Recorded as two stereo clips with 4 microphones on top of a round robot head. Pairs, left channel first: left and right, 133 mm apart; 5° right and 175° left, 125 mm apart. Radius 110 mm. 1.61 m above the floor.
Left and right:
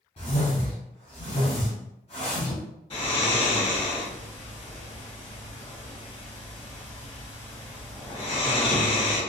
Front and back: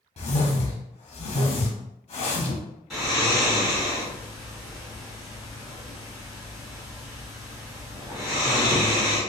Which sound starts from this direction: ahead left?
A whoosh, at 0.2 s.